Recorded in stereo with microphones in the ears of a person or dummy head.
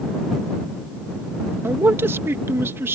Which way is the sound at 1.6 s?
15° right (ahead or behind).